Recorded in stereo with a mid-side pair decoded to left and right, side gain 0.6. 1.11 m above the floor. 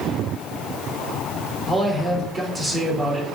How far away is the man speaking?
About 2 m.